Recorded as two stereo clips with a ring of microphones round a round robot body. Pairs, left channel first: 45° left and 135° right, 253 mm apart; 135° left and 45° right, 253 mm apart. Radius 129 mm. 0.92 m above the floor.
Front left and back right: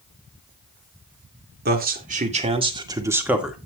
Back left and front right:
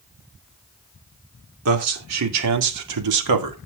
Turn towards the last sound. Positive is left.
turn(degrees=-45)